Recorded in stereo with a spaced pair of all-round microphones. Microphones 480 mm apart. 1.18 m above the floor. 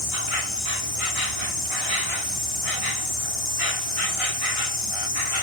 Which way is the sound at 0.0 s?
70° left (ahead or behind).